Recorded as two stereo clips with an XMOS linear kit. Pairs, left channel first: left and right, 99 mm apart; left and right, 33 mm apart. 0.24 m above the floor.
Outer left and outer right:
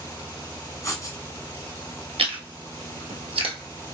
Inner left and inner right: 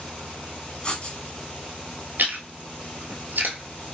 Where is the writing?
35° left (ahead or behind), 1.3 m.